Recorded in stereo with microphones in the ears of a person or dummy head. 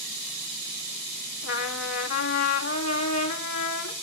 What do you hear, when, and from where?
1.4 s a trumpet: 75° left (ahead or behind), 2.0 m